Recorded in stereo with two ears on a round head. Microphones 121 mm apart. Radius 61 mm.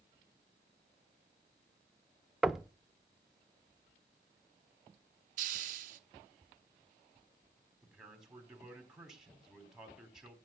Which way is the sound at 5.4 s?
60° right (ahead or behind).